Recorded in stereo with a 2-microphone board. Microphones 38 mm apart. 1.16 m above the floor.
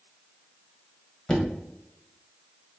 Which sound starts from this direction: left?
Knocking, at 1.3 s.